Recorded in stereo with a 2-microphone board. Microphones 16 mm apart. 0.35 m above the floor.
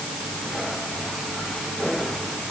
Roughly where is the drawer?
No drawer in this recording.